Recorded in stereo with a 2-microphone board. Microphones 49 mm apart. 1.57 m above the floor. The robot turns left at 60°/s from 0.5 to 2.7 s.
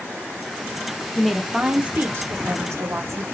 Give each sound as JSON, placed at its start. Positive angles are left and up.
{"t": 1.1, "sound": "a woman speaking", "azimuth_deg": 10, "distance_m": 0.9}